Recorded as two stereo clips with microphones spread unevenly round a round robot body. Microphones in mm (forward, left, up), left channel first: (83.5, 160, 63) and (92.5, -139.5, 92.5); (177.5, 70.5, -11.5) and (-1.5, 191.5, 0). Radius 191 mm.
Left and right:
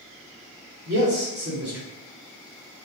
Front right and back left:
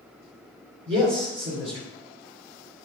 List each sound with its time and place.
0.9 s a man speaking: 150° right, 2.5 m